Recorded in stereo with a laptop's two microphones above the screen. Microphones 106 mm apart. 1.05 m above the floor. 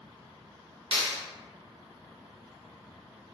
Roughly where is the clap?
Right.